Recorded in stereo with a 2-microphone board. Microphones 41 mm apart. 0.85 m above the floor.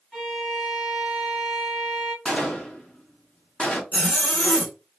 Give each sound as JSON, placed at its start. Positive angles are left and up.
{"t": 0.1, "sound": "a violin", "side_deg": 0, "distance_m": 1.0}
{"t": 2.2, "sound": "a gunshot", "side_deg": 25, "distance_m": 0.7}
{"t": 3.9, "sound": "a zipper", "side_deg": 40, "distance_m": 1.5}